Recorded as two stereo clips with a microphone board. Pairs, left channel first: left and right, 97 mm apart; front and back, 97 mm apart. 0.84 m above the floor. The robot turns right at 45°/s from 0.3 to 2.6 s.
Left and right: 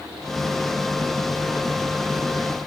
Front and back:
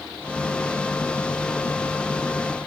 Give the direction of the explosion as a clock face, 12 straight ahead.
No explosion in this recording.